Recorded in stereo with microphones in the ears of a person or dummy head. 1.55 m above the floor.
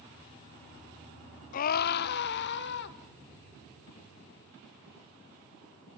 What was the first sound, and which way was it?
A scream, 50° left (ahead or behind).